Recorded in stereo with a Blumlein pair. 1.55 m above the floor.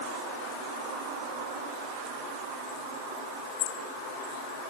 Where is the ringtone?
I don't hear a ringtone.